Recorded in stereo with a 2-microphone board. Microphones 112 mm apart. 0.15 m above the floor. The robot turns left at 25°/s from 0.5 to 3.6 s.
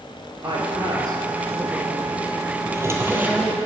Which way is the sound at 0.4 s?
45° right (ahead or behind).